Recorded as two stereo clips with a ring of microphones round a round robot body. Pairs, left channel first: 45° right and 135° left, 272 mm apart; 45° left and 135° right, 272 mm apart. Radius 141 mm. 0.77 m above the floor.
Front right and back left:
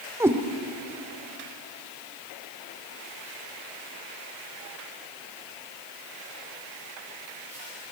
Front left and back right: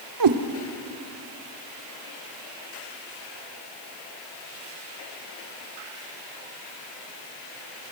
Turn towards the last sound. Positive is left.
turn(degrees=-145)